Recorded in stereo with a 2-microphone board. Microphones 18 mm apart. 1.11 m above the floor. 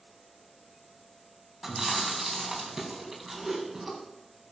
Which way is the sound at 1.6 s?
15° right (ahead or behind).